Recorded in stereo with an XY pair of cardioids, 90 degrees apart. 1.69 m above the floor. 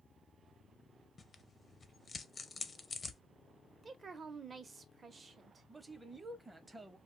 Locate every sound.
1.2 s tearing paper: 35° left, 0.5 m
3.8 s a woman speaking: 40° right, 0.8 m
5.7 s a man speaking: 20° right, 0.7 m